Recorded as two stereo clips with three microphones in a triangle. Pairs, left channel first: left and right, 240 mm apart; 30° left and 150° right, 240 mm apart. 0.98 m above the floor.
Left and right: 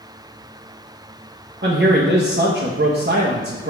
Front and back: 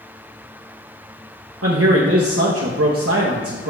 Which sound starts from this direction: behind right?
A man speaking, at 1.6 s.